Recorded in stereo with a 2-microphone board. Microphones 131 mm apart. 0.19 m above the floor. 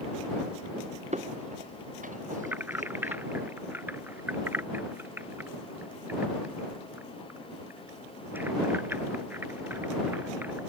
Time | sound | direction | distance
1.1 | footsteps | 60° right (ahead or behind) | ?
2.4 | keys jangling | 15° right (ahead or behind) | ?